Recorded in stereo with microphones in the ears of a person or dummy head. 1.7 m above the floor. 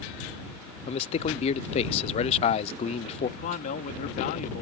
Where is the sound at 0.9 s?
35° left (ahead or behind).